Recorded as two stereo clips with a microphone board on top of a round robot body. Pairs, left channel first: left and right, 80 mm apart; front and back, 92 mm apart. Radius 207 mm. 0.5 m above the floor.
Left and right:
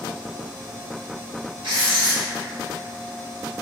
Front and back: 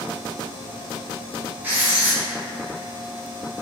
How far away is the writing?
About 0.8 m.